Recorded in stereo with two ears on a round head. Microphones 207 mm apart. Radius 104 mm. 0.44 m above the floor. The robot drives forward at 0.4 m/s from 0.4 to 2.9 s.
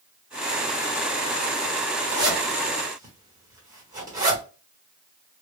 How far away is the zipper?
About 1.3 m.